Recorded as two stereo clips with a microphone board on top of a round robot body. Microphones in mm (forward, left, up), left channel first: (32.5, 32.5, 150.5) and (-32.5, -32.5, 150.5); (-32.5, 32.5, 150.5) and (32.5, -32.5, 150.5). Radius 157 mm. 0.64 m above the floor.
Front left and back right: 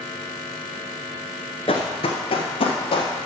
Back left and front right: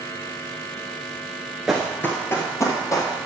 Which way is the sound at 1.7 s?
35° left.